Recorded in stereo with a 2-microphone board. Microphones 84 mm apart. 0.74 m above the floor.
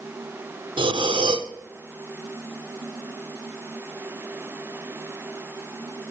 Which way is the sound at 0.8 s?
75° right (ahead or behind).